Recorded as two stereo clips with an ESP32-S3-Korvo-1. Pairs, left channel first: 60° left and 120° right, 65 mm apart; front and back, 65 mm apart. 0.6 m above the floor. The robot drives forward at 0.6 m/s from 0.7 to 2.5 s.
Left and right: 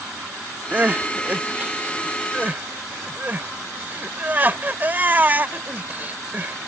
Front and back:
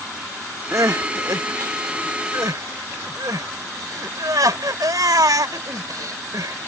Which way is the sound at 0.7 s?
Straight behind.